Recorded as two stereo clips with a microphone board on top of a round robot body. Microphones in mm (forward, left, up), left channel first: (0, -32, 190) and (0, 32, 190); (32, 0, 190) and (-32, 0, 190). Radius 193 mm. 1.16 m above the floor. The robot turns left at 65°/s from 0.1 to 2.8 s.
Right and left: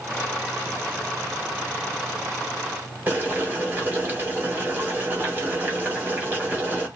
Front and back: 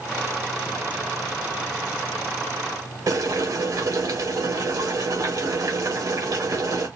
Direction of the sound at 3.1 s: 155° left.